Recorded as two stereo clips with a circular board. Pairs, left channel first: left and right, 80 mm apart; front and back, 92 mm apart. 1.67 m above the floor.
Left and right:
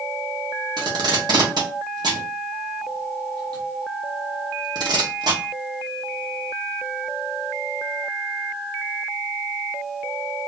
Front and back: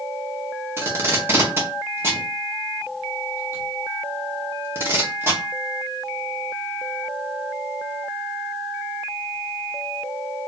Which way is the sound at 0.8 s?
115° right.